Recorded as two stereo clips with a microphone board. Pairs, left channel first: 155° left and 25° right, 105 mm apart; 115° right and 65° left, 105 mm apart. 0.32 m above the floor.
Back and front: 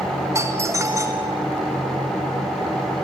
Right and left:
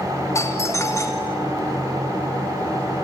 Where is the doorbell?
70° right, 1.7 m.